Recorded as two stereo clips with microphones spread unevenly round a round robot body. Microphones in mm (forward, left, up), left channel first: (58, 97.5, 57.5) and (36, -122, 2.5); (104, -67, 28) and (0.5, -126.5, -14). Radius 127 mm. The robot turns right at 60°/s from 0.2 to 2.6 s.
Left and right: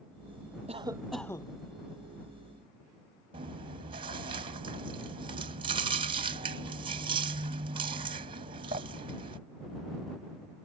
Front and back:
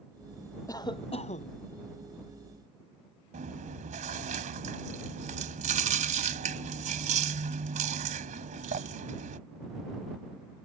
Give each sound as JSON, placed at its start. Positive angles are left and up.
{"t": 0.7, "sound": "a cough", "azimuth_deg": -35}
{"t": 3.3, "sound": "chewing", "azimuth_deg": -160}